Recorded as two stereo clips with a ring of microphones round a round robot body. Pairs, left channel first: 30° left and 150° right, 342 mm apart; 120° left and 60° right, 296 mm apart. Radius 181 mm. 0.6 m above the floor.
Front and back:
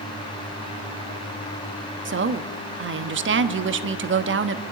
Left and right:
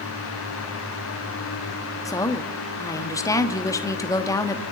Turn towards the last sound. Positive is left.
turn(degrees=-170)